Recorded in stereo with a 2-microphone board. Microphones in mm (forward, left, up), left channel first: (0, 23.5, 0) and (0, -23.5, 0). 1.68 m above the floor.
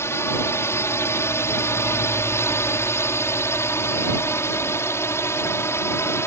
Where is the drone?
65° left (ahead or behind).